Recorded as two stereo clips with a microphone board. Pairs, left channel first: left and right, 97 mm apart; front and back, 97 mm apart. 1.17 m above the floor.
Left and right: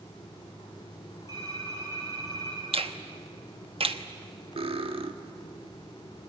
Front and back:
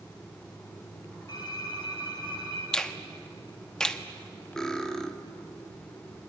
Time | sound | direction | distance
1.3 | typing on a keyboard | 40° right | 6 m
2.7 | a finger snap | 80° right | 1.2 m
4.6 | cutlery clinking | 80° right | 1.4 m